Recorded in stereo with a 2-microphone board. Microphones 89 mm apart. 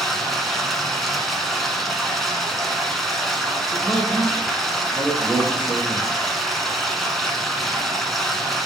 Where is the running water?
Centre (ahead or behind), 1.3 m.